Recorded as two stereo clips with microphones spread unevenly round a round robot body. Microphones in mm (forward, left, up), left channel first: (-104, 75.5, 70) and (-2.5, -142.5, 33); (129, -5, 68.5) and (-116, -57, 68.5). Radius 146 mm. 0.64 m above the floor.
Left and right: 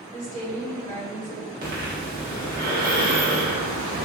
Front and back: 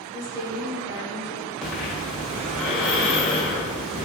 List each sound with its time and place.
0.1 s a woman speaking: 175° left, 1.9 m
1.6 s breathing: 75° right, 1.6 m